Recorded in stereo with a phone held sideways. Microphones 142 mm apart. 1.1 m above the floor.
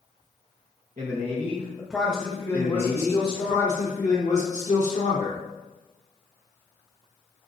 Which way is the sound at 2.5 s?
60° left (ahead or behind).